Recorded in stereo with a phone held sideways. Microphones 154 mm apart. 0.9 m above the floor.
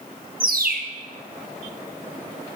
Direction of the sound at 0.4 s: 70° right (ahead or behind).